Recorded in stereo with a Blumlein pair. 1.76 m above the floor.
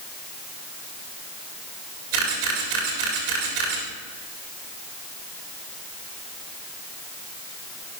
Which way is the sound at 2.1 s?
50° right.